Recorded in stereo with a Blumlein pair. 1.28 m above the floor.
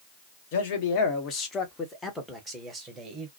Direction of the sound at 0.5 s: 50° left.